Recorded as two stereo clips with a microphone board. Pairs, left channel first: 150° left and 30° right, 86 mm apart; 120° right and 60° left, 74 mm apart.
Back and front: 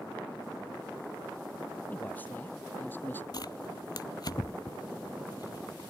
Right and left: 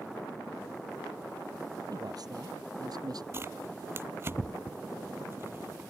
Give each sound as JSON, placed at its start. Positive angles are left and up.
{"t": 1.9, "sound": "a man speaking", "azimuth_deg": 80}
{"t": 3.3, "sound": "tearing paper", "azimuth_deg": 115}